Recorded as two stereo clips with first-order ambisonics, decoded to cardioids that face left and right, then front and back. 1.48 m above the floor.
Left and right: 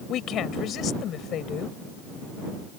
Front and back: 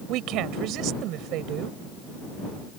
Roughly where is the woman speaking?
Behind left.